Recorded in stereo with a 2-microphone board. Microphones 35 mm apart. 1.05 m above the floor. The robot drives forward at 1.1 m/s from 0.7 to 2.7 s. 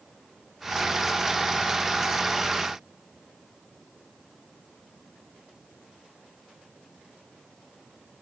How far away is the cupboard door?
No cupboard door in this recording.